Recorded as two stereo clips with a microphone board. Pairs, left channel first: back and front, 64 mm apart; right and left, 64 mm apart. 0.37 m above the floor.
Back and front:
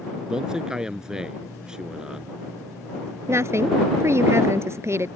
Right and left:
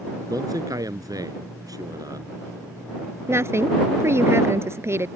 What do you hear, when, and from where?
0.3 s a man speaking: 80° left
3.3 s a woman speaking: 45° left